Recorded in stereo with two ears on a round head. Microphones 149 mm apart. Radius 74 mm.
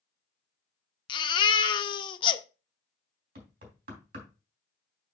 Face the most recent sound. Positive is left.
turn(degrees=-60)  # may be behind; listen again after turning